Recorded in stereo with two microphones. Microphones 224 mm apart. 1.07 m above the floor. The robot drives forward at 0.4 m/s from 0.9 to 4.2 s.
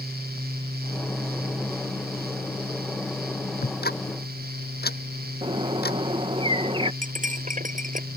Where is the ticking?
50° left (ahead or behind).